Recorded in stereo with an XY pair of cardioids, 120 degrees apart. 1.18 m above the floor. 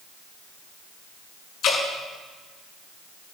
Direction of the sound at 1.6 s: 60° left.